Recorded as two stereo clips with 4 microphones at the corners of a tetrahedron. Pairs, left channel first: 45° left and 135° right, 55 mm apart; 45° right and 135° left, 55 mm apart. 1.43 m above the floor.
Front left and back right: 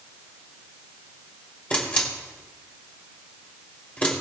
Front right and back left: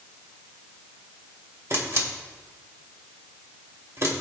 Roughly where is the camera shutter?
Left.